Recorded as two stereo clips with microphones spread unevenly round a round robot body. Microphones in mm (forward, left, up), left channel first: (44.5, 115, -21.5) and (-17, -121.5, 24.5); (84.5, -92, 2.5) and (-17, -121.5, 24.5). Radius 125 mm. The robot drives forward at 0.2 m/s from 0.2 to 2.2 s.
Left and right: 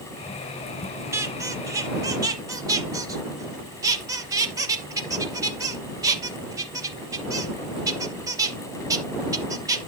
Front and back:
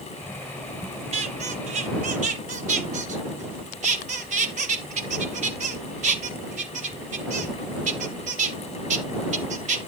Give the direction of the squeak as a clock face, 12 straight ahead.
6 o'clock.